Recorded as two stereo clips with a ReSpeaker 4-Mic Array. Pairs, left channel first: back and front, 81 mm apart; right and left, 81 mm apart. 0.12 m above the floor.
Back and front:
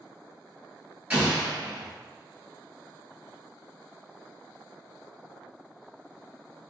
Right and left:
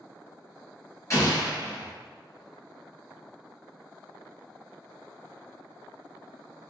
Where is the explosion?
65° right, 1.9 m.